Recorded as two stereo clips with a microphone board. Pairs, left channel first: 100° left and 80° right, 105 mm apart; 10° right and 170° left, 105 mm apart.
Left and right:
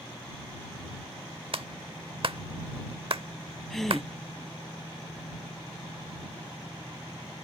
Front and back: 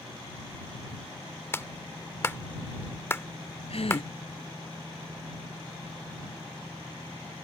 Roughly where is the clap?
Right.